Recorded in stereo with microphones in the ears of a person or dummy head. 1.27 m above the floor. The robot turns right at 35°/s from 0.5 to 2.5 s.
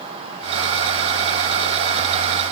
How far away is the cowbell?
No cowbell in this recording.